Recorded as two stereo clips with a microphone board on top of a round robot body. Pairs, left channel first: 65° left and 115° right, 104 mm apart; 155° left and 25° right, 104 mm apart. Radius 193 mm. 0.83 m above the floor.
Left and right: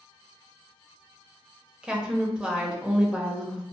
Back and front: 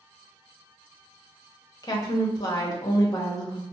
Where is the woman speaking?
170° left, 1.0 m.